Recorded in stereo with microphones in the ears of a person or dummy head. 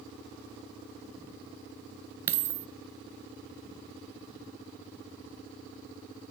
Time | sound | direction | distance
2.3 | a dropped coin | 15° right (ahead or behind) | 0.7 m